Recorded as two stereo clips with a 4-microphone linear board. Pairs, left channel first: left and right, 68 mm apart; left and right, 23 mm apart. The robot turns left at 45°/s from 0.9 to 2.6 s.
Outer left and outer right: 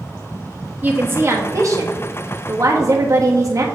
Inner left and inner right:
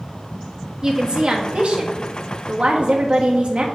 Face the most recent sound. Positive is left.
turn(degrees=-110)